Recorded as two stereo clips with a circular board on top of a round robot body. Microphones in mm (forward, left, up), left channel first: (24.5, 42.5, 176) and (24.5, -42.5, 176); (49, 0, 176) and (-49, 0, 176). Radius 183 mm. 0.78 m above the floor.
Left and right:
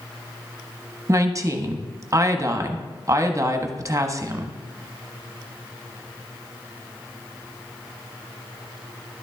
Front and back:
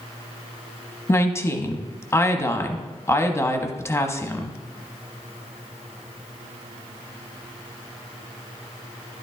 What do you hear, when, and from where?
1.1 s a woman speaking: 55° right, 1.2 m